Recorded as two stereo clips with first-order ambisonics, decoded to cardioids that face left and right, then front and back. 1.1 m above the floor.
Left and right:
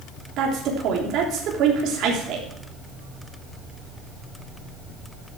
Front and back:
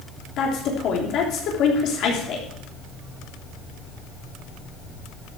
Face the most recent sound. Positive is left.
turn(degrees=-45)